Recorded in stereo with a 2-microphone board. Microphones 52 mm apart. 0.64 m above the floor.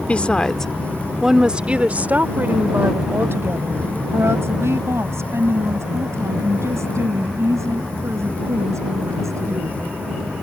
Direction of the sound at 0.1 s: 30° left (ahead or behind).